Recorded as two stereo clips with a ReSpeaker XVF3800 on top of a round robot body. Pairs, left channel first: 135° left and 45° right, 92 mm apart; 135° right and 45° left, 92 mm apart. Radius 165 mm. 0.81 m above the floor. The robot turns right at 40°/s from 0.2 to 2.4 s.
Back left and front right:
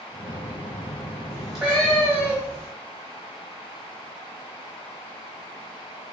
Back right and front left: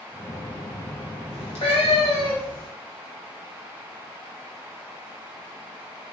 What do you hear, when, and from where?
1.3 s a cat meowing: 140° right, 0.7 m; by 2.7 s 95° right, 0.7 m